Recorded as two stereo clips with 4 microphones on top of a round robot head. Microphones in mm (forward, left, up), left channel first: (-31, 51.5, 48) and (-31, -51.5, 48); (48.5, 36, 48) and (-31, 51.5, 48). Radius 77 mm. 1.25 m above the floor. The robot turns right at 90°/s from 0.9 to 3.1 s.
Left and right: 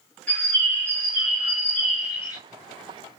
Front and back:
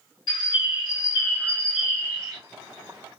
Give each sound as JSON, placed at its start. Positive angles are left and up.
{"t": 0.3, "sound": "a bird", "azimuth_deg": 10, "distance_m": 1.8}